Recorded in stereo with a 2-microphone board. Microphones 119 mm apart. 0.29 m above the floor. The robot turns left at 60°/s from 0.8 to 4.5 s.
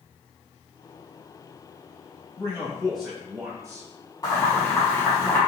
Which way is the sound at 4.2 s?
30° left (ahead or behind).